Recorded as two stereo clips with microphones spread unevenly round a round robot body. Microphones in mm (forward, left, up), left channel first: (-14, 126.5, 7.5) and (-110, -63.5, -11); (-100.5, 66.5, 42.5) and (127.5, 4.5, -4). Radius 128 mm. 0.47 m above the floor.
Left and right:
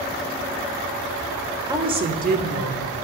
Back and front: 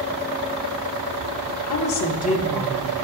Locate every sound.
1.7 s a woman speaking: 175° left, 1.2 m; by 2.9 s 80° right, 1.3 m